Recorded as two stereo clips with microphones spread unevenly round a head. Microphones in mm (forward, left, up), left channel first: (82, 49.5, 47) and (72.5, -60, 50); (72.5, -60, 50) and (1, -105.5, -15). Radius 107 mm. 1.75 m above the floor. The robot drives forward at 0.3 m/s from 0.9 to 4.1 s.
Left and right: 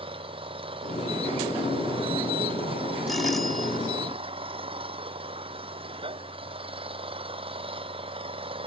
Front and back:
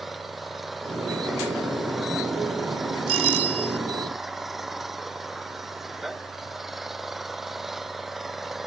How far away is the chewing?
I don't hear chewing.